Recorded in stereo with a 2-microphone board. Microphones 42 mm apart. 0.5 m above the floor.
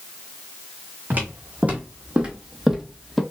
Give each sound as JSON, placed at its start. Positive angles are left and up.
{"t": 1.1, "sound": "footsteps", "side_deg": -40, "distance_m": 1.6}